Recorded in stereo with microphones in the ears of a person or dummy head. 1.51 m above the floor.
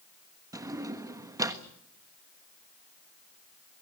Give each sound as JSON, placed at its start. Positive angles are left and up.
{"t": 0.5, "sound": "a drawer", "side_deg": -20, "distance_m": 1.3}